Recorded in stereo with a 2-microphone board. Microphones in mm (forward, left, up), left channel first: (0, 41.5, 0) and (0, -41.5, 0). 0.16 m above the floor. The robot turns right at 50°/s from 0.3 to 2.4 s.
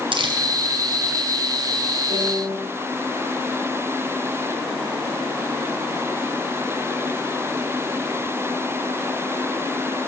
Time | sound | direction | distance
0.1 | crumpling | 80° right | 1.7 m
2.1 | a piano | 80° right | 5.5 m